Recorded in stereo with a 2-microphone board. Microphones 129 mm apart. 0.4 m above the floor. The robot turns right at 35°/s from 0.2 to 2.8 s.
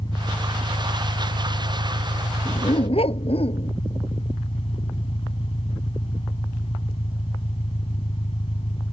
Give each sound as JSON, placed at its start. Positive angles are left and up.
{"t": 0.0, "sound": "an engine running", "azimuth_deg": 35}
{"t": 2.5, "sound": "a dog barking", "side_deg": 40}